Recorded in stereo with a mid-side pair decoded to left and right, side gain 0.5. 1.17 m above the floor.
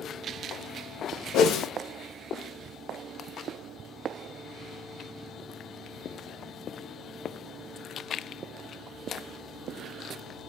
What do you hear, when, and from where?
1.3 s a whoosh: 70° left, 0.9 m